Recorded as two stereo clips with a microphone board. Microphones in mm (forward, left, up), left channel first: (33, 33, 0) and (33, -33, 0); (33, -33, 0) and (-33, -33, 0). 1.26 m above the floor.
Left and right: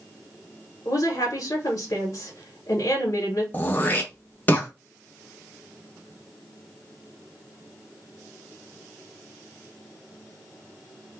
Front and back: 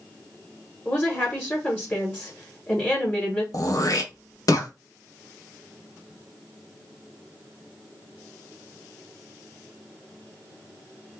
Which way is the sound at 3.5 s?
30° left.